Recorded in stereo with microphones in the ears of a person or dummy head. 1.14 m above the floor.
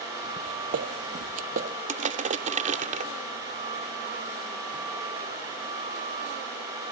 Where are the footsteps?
45° right (ahead or behind).